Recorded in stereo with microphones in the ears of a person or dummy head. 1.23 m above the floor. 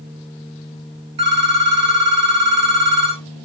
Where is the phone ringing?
30° right (ahead or behind), 0.7 m.